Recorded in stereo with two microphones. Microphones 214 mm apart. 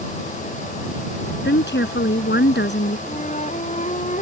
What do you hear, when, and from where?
1.4 s a woman speaking: 55° left (ahead or behind)
3.1 s a flute: 35° left (ahead or behind)